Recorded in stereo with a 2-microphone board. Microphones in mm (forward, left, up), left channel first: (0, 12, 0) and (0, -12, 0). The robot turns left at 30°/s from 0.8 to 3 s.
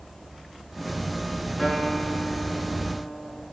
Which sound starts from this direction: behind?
A guitar, at 1.6 s.